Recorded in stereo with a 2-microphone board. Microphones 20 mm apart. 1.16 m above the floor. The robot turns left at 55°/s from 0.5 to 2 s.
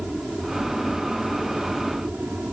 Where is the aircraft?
25° right; by 2.5 s 110° right.